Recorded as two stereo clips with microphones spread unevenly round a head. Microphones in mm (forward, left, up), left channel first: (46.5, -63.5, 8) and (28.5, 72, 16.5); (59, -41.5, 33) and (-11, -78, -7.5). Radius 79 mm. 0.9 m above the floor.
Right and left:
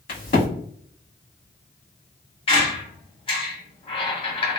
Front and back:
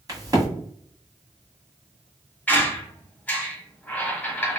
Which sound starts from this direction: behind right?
A crack, at 0.1 s.